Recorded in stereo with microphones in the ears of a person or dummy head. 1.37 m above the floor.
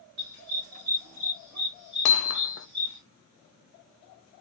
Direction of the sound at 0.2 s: 45° right (ahead or behind).